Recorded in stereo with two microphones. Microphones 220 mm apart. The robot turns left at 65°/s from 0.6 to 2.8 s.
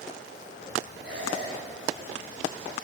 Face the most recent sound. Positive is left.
turn(degrees=140)